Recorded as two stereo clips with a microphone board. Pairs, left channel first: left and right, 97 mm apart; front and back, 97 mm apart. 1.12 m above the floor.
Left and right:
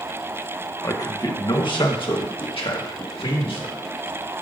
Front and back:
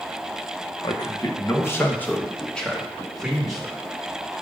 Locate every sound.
0.8 s a man speaking: 40° left, 1.1 m; by 3.7 s 95° left, 2.0 m